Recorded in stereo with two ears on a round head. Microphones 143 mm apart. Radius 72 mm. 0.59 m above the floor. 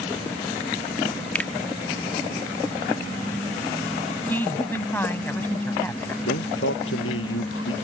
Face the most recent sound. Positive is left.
turn(degrees=85)